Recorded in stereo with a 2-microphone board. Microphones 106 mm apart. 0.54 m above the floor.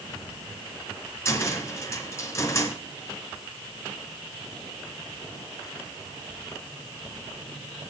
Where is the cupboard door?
25° left (ahead or behind), 2.5 m.